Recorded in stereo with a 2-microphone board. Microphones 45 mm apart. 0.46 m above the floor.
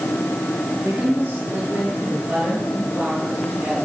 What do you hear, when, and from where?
0.8 s a woman speaking: 30° right (ahead or behind), 7.5 m; by 3.9 s 15° right (ahead or behind), 8 m